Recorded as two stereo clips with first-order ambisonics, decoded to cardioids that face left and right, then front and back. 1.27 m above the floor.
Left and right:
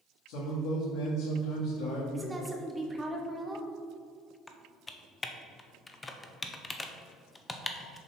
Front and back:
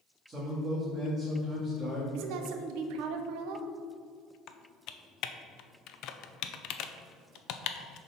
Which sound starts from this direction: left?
A man speaking, at 0.3 s.